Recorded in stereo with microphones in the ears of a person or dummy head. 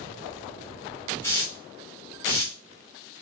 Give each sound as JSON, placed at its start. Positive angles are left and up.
{"t": 1.2, "sound": "a hiss", "side_deg": 15, "distance_m": 1.3}